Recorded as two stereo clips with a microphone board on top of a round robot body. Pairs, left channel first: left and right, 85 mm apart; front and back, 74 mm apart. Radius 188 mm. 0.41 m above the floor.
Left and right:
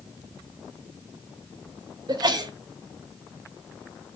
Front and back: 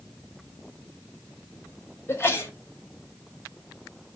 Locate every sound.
2.1 s a sneeze: 55° right, 3.5 m